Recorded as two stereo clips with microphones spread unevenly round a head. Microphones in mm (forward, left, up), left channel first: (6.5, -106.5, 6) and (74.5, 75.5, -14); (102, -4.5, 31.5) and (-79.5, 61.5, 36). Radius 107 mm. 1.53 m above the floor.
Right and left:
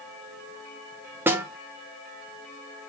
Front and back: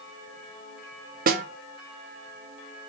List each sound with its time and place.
1.3 s a snare drum: 150° left, 0.5 m